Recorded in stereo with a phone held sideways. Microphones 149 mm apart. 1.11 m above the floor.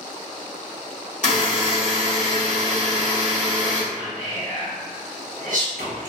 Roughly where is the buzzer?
Left.